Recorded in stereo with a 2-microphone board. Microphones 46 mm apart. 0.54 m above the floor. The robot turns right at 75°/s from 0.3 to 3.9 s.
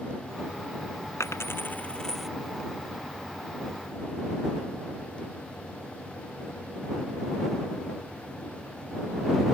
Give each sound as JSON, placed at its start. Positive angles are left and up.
{"t": 1.2, "sound": "a dropped coin", "side_deg": 80}